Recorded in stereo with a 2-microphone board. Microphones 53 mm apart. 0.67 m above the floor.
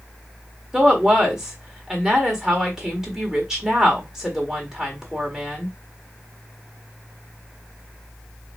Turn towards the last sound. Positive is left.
turn(degrees=-10)  # may be behind; listen again after turning